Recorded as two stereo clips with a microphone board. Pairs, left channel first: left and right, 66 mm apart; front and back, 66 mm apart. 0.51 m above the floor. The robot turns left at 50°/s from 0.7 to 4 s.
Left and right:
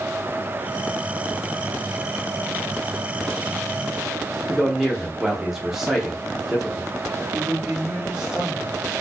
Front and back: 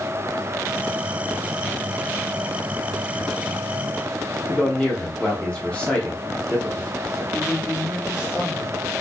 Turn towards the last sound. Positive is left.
turn(degrees=-10)